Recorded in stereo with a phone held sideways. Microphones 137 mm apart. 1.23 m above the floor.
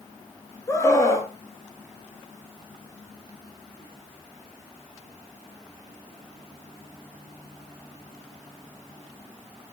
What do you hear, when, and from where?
0.7 s a scream: 20° left (ahead or behind), 2.5 m